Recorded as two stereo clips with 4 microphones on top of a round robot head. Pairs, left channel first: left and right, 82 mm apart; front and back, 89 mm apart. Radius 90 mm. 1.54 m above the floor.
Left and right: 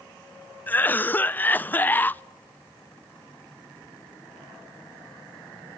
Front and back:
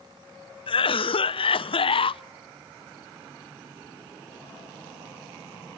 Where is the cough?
20° left, 0.5 m.